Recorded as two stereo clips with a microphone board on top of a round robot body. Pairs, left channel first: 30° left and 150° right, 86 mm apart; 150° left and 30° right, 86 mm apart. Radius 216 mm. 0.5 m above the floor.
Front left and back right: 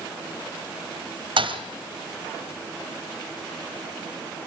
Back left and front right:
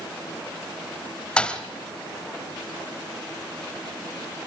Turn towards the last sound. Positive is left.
turn(degrees=-130)